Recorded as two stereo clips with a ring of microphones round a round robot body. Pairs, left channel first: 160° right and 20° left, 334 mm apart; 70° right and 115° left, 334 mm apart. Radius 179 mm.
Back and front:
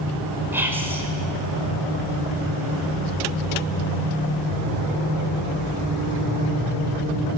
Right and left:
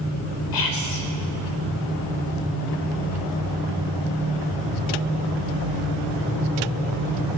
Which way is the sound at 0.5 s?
60° right.